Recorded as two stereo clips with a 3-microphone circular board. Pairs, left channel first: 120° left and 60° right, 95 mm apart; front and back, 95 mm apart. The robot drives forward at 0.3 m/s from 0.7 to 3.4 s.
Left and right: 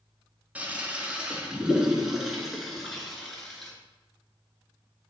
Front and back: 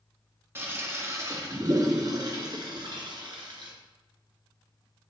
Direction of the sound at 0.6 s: 130° right.